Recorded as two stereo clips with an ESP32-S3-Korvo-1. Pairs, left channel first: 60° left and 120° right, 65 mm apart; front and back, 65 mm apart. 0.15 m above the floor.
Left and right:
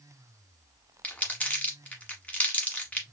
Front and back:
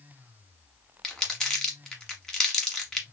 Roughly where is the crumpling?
Ahead left.